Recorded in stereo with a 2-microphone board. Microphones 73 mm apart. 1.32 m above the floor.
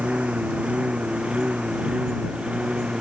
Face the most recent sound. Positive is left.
turn(degrees=-10)  # may be behind; listen again after turning